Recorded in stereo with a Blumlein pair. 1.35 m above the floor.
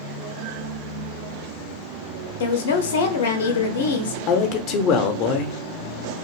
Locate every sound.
2.4 s a woman speaking: 60° left, 0.6 m
4.3 s a man speaking: 40° left, 0.6 m